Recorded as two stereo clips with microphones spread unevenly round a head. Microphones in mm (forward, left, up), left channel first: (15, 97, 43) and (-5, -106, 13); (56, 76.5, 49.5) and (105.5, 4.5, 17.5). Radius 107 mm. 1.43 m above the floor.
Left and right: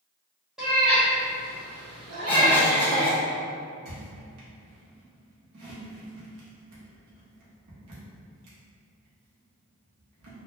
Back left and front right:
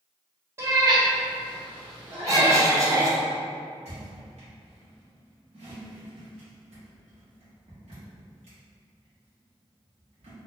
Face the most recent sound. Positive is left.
turn(degrees=-85)